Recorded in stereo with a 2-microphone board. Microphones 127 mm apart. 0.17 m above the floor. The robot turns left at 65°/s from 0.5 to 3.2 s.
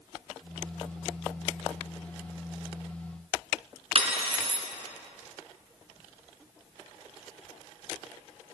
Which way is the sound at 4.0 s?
50° right (ahead or behind).